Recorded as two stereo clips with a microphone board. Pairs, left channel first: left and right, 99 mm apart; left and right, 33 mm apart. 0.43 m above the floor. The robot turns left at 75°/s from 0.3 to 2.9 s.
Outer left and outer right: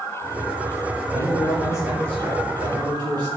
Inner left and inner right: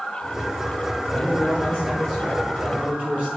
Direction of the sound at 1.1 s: 85° left.